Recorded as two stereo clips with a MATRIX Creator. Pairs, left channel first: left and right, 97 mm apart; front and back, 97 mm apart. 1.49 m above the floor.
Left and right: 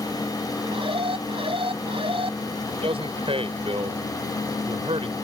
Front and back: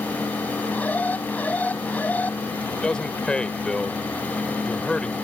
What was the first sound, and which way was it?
An alarm, 75° right.